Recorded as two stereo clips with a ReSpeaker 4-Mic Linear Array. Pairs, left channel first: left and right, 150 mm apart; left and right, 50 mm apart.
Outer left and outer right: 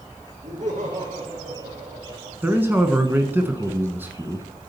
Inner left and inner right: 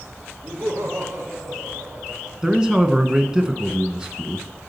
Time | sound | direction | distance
0.4 | laughter | 60° right (ahead or behind) | 5.5 m
2.4 | a man speaking | 15° right (ahead or behind) | 1.0 m